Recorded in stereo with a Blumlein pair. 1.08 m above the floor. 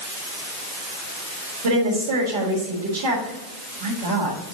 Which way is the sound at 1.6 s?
60° right.